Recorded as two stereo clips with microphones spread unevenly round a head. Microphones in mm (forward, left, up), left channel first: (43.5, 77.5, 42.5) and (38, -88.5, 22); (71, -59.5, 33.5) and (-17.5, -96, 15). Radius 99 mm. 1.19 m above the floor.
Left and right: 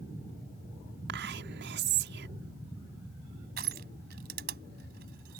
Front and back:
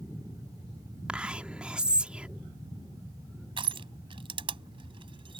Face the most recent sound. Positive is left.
turn(degrees=-135)